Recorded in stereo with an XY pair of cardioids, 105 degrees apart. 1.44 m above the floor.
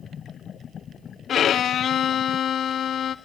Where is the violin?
55° left, 0.5 m.